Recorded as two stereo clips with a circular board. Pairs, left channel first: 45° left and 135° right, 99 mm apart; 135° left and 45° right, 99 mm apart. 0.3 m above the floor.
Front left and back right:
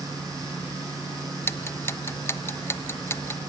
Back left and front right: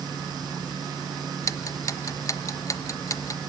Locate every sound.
1.4 s ticking: 95° left, 0.7 m